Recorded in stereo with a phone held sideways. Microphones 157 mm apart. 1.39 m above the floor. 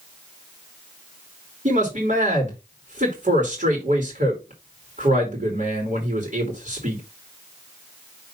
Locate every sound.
1.6 s a man speaking: 55° right (ahead or behind), 2.5 m